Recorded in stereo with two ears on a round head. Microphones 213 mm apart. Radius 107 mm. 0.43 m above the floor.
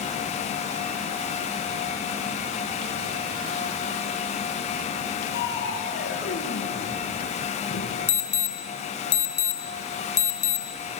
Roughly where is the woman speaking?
No woman speaking in this recording.